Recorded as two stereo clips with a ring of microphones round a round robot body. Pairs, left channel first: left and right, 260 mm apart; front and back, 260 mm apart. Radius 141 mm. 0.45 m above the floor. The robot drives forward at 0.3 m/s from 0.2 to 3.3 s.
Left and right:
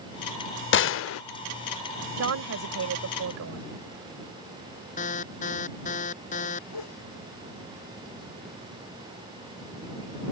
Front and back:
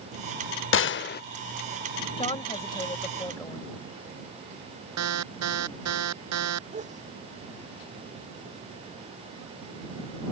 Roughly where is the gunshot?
Ahead left.